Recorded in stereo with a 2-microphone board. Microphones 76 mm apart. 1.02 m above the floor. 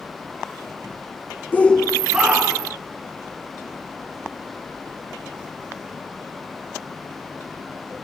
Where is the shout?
25° left (ahead or behind), 0.7 m; by 2.8 s 20° right (ahead or behind), 1.7 m.